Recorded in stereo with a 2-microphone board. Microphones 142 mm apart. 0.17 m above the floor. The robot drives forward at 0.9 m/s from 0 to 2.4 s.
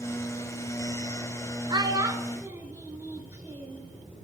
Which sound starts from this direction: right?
A child speaking, at 1.7 s.